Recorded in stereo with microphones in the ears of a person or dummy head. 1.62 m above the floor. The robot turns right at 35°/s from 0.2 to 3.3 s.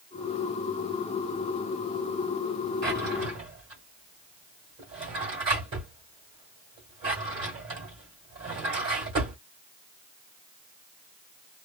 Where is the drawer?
15° right (ahead or behind), 1.5 m; by 9.4 s 25° right (ahead or behind), 1.5 m.